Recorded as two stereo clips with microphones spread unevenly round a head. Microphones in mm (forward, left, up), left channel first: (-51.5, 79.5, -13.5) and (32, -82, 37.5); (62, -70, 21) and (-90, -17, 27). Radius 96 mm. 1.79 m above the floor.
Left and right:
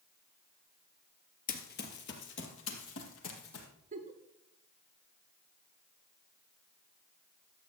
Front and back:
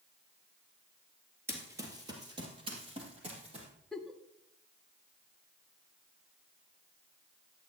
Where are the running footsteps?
105° left, 1.9 m; by 3.7 s 110° left, 3.5 m.